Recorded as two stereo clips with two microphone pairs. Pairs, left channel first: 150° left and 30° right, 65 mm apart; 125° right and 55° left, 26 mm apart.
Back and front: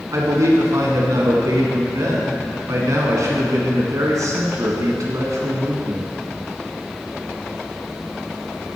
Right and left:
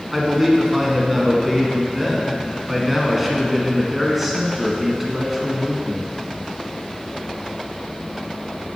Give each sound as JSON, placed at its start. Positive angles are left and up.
{"t": 0.1, "sound": "a man speaking", "azimuth_deg": -25, "distance_m": 2.0}